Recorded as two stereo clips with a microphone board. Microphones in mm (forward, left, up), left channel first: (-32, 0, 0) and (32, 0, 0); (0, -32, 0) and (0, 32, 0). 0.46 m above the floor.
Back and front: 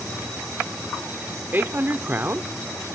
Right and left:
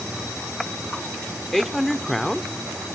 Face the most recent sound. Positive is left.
turn(degrees=-5)